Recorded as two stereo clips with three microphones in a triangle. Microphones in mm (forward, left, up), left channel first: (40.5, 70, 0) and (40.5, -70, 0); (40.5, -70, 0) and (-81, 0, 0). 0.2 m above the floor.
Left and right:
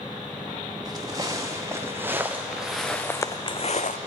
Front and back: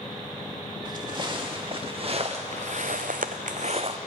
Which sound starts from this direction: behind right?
Footsteps, at 0.8 s.